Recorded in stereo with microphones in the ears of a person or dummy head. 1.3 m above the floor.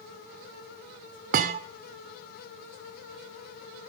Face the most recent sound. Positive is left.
turn(degrees=-45)  # may be behind; listen again after turning